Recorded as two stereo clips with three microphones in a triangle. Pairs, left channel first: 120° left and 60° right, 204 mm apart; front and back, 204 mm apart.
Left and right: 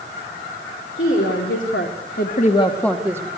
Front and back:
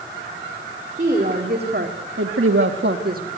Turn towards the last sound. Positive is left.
turn(degrees=-135)